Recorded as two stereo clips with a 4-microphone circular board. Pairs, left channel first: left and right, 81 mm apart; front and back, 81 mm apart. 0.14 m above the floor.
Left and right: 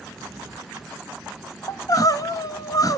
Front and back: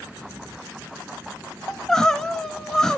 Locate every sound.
1.7 s crying: 80° left, 0.6 m